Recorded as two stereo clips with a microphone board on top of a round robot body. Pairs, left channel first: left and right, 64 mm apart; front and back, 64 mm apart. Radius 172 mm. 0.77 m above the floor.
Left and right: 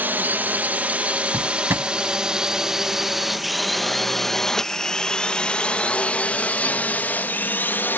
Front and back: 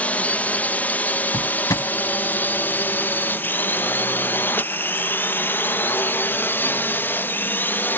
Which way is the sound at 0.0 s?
50° right.